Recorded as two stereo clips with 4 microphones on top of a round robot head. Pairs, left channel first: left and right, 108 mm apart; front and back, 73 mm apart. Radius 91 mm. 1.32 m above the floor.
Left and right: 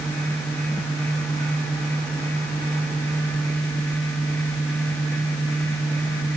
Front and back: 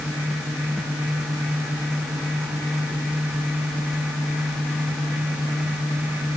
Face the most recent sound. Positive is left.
No sound to turn to.